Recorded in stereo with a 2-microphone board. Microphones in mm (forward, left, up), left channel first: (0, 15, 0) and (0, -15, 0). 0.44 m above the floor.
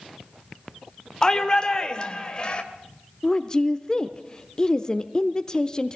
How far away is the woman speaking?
About 0.8 m.